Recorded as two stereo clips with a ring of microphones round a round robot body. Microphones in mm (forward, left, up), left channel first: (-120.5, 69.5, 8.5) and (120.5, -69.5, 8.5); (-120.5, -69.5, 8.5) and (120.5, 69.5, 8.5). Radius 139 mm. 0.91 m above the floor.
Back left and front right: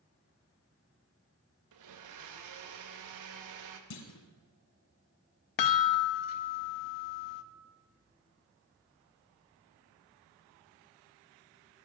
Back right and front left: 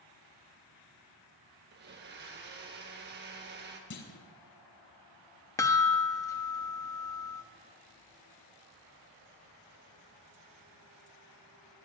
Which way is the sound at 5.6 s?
130° left.